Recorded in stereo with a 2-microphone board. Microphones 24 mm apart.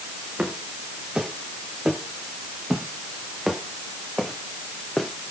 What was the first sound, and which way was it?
Footsteps, 40° right (ahead or behind).